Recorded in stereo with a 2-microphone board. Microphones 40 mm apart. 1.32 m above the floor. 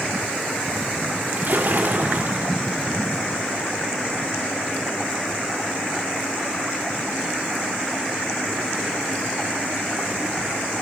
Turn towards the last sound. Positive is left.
turn(degrees=-55)  # may be behind; listen again after turning